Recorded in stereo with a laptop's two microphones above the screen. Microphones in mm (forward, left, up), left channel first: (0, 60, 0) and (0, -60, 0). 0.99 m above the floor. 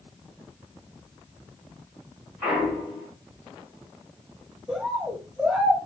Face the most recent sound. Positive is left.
turn(degrees=-10)  # may be behind; listen again after turning